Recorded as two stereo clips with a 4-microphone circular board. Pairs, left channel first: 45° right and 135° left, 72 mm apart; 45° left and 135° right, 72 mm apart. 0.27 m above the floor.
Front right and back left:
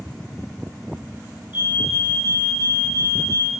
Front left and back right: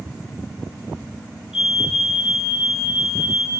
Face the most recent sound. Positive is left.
turn(degrees=-50)